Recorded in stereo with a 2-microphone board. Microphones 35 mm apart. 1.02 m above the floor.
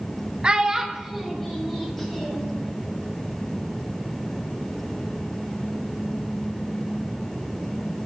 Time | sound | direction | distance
0.4 | a child speaking | 30° right (ahead or behind) | 0.6 m